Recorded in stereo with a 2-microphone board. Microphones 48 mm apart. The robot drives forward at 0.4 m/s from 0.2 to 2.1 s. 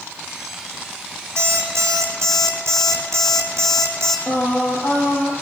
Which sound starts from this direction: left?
Singing, at 4.3 s.